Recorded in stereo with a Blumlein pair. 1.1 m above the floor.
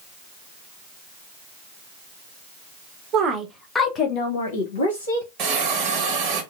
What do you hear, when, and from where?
3.1 s a woman speaking: 30° right, 0.9 m; by 5.3 s 70° left, 1.6 m
5.4 s a hiss: 35° right, 1.0 m